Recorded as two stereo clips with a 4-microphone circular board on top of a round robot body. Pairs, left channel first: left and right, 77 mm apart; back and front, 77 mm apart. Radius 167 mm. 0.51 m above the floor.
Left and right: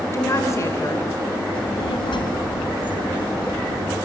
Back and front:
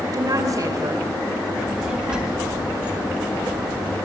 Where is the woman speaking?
40° left, 3 m.